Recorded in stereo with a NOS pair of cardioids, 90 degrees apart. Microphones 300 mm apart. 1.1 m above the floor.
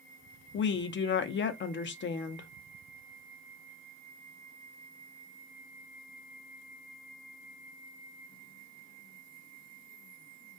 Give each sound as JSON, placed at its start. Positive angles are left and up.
{"t": 0.5, "sound": "a woman speaking", "azimuth_deg": 40, "distance_m": 0.5}